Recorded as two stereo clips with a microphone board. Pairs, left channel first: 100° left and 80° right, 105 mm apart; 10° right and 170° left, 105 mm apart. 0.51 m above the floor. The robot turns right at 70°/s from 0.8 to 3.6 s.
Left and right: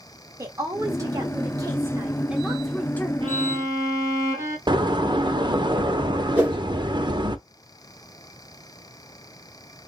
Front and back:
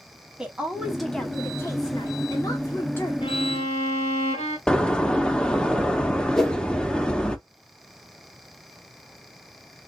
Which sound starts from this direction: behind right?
A woman speaking, at 0.4 s.